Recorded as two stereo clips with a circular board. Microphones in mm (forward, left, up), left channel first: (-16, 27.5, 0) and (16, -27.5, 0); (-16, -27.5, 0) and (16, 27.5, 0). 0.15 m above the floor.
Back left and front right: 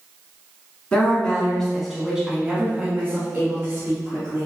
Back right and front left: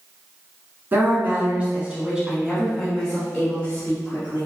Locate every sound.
0.9 s a woman speaking: 65° left, 1.4 m; by 4.5 s 70° right, 1.7 m